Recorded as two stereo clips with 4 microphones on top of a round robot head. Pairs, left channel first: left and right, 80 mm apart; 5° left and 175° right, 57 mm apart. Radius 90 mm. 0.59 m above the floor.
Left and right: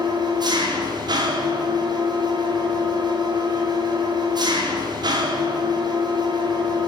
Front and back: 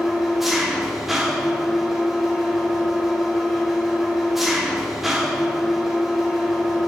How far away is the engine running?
About 1.6 m.